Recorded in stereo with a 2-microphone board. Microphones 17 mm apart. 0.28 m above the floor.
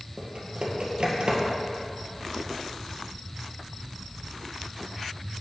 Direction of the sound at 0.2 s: 70° right (ahead or behind).